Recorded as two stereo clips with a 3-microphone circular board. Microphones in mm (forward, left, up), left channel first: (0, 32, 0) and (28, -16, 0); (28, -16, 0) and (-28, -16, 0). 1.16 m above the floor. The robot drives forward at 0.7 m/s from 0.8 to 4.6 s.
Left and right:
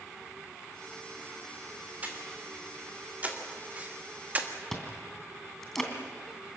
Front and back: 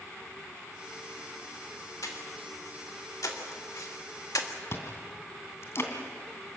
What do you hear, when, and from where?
2.0 s breathing: straight ahead, 3.5 m
4.7 s chewing: 35° left, 3 m